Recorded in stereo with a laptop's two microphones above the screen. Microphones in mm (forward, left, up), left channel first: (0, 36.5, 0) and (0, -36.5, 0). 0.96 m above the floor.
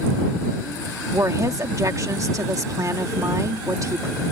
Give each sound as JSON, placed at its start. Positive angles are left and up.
{"t": 1.1, "sound": "a woman speaking", "side_deg": -50}